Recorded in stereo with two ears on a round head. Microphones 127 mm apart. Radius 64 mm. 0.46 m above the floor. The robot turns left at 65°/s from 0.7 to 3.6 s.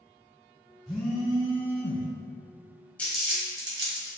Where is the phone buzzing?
Straight behind, 1.4 m; by 2.1 s 100° left, 1.4 m.